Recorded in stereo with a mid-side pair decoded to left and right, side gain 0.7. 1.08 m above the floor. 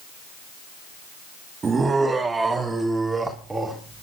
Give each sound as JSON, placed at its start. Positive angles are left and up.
{"t": 1.6, "sound": "laughter", "azimuth_deg": -25, "distance_m": 1.7}